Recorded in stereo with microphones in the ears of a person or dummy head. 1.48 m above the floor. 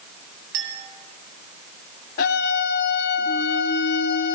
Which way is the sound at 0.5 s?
75° right (ahead or behind).